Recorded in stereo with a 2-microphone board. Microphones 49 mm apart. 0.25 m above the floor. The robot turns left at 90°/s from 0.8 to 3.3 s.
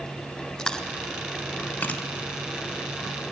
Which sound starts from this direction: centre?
Chewing, at 0.6 s.